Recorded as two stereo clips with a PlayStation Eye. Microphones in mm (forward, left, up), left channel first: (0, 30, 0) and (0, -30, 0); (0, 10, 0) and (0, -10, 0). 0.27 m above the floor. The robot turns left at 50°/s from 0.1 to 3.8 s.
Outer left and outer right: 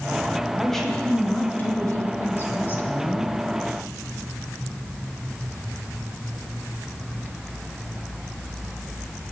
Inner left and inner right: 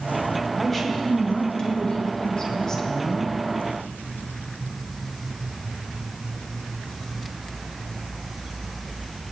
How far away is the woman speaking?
About 1.9 m.